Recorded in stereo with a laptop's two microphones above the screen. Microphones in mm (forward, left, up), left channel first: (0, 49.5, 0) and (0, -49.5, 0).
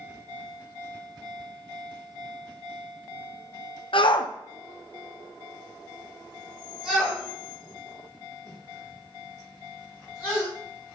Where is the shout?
65° left (ahead or behind), 0.7 m; by 10.5 s 25° right (ahead or behind), 3.5 m.